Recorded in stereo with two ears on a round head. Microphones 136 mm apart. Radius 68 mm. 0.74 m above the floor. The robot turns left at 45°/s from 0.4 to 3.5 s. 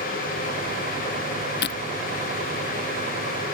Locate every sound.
1.6 s breaking glass: 80° left; by 1.8 s 85° left